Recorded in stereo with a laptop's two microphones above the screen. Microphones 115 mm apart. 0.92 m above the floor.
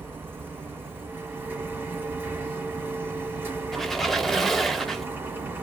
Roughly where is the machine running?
Right.